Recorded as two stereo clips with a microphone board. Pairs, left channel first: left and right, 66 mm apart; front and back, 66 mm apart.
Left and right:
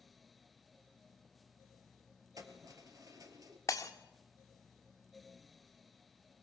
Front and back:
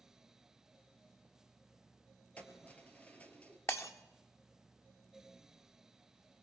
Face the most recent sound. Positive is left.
turn(degrees=50)